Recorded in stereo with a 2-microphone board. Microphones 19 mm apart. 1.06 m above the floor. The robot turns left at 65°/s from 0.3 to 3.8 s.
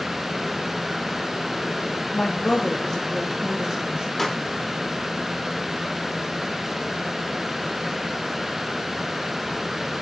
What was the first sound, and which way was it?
A woman speaking, 75° left.